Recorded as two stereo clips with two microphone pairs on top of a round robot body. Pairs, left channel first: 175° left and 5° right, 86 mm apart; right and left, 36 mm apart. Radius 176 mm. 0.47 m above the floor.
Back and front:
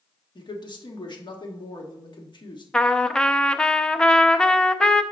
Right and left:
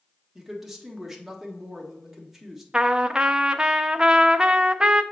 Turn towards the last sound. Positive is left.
turn(degrees=115)